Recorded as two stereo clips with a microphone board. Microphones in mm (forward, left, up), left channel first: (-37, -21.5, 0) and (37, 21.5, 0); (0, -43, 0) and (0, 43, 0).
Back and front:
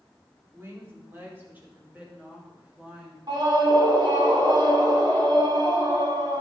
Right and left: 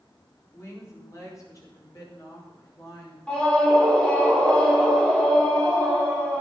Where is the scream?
10° right, 4 m.